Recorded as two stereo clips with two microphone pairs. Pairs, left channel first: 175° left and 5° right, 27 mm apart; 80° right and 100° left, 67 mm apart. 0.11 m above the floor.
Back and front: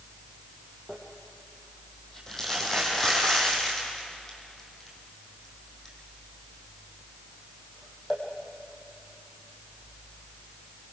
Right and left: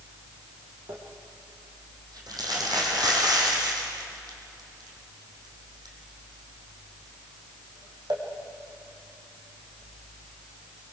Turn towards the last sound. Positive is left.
turn(degrees=100)